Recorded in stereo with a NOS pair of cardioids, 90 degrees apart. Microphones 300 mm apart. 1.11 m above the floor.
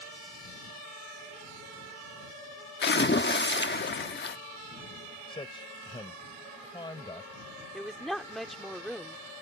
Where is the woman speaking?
Straight ahead.